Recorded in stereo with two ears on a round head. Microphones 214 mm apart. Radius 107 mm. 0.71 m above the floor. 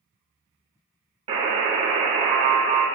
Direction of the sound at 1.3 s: 25° right (ahead or behind).